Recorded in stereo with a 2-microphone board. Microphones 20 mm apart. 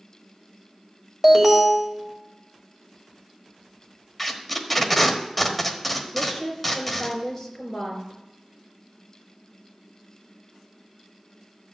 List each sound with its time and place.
1.2 s an alarm: 10° right (ahead or behind), 1.8 m
4.2 s tape being pulled: 5° left (ahead or behind), 1.2 m
6.1 s a woman speaking: 10° left (ahead or behind), 4 m